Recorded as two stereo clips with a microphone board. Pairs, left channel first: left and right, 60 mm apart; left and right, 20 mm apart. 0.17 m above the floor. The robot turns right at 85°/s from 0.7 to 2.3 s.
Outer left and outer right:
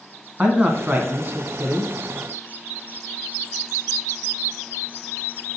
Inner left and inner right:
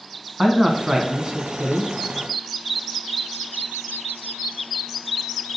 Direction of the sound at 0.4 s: 150° right.